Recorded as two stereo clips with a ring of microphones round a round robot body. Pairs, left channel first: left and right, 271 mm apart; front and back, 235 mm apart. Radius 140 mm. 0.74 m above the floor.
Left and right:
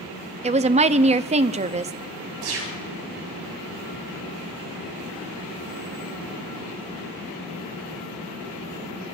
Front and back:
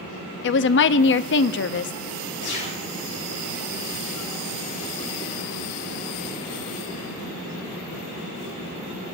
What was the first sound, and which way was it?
A woman speaking, 30° right.